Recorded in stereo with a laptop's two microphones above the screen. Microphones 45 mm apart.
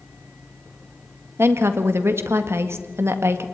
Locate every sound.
1.4 s a woman speaking: 70° right (ahead or behind), 1.7 m